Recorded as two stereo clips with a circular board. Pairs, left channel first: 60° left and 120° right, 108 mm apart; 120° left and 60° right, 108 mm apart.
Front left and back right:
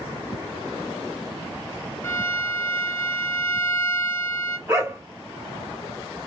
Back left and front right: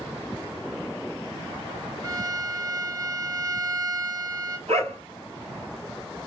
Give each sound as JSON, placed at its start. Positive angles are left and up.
{"t": 2.0, "sound": "a violin", "azimuth_deg": -5, "distance_m": 1.3}
{"t": 4.7, "sound": "a dog barking", "azimuth_deg": -55, "distance_m": 1.9}